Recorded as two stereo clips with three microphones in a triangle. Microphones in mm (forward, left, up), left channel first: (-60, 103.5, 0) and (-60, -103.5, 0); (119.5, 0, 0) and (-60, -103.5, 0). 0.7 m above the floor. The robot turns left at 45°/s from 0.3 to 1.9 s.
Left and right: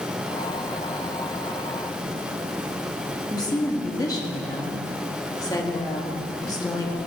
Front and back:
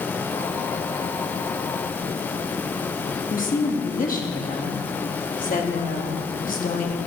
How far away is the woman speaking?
About 1.2 m.